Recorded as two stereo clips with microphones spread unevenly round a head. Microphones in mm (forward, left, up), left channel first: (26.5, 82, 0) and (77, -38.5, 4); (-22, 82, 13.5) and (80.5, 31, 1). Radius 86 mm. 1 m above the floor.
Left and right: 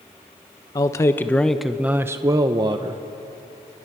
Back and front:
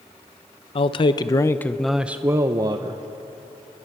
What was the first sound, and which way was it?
A man speaking, 165° left.